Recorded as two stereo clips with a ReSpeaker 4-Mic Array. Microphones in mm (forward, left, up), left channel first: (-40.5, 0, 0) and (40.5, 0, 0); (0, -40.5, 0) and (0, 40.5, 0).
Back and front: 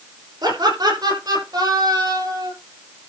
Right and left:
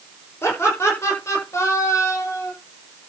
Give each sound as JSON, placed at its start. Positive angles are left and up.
{"t": 0.4, "sound": "laughter", "azimuth_deg": -30, "distance_m": 8.0}